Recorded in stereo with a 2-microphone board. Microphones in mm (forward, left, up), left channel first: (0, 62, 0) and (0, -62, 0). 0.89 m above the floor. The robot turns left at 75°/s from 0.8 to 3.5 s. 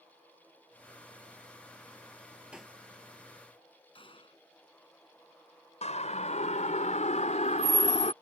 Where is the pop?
10° right (ahead or behind); by 2.8 s 10° left (ahead or behind).